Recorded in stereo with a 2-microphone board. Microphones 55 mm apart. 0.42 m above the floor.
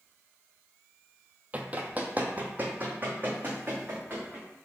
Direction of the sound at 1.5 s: 25° right (ahead or behind).